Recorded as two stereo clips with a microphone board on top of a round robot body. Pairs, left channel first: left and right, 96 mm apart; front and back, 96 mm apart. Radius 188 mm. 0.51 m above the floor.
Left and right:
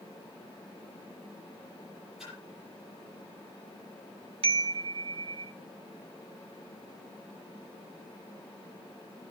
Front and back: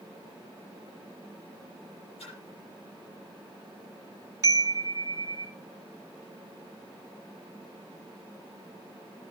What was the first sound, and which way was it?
A splash, 5° right.